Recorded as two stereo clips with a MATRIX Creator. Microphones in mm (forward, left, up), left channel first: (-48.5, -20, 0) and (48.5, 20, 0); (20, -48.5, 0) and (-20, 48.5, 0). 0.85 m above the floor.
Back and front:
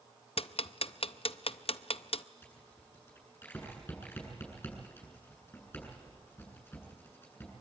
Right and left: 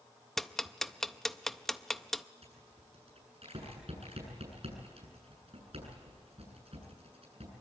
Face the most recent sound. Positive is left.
turn(degrees=135)